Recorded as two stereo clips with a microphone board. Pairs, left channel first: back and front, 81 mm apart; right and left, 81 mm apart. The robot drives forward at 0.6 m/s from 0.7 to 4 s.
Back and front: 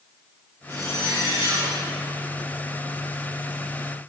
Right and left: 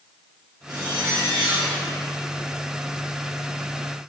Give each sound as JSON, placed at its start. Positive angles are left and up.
{"t": 0.7, "sound": "a zipper", "azimuth_deg": 50, "distance_m": 5.0}